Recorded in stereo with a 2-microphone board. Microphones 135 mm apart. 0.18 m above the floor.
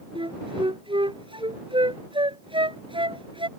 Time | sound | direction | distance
0.1 | a flute | 40° right (ahead or behind) | ?